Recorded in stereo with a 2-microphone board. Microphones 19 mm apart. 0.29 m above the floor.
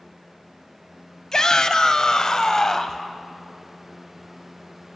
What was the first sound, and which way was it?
A shout, 35° left (ahead or behind).